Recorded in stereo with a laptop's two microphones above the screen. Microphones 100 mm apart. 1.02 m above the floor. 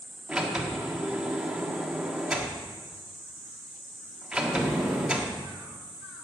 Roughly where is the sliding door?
Centre.